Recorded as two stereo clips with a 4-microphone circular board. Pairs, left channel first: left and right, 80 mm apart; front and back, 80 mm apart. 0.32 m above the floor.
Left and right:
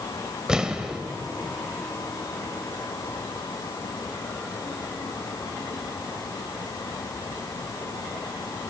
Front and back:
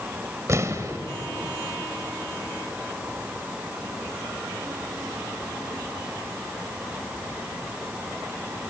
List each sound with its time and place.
0.5 s an explosion: 165° right, 1.4 m